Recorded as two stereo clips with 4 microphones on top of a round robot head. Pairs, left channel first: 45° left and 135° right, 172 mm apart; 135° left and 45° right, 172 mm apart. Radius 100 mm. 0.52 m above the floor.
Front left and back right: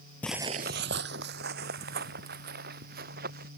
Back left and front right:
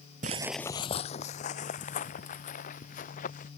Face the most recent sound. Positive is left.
turn(degrees=-175)